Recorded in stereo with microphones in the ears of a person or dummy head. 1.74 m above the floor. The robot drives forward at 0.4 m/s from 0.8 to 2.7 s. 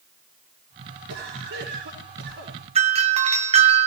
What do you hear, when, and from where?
1.1 s a cough: 70° right (ahead or behind), 5.5 m; by 2.6 s 80° right, 5.5 m
2.8 s a doorbell: 25° right (ahead or behind), 1.0 m